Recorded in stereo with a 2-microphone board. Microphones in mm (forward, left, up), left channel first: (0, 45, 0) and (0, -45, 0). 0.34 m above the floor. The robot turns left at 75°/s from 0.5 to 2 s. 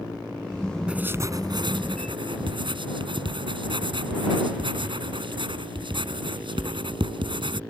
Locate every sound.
0.9 s writing: 10° right (ahead or behind); by 7.6 s 70° right (ahead or behind)